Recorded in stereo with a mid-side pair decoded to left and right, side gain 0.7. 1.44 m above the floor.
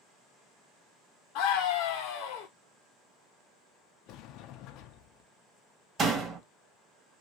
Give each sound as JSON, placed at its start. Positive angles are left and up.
{"t": 1.4, "sound": "a scream", "azimuth_deg": 70, "distance_m": 0.9}
{"t": 4.1, "sound": "a sliding door", "azimuth_deg": 60, "distance_m": 0.6}
{"t": 6.0, "sound": "a door slam", "azimuth_deg": -35, "distance_m": 1.6}